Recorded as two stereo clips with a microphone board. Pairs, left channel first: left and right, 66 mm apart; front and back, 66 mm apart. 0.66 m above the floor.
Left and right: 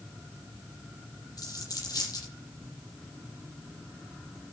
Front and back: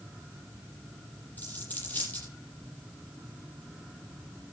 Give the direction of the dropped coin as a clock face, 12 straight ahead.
10 o'clock.